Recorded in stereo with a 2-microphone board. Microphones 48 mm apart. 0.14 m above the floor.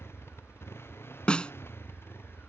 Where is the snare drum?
25° left (ahead or behind).